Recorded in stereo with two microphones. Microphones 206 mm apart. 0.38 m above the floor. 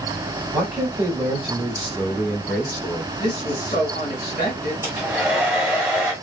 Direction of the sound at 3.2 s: 35° left (ahead or behind).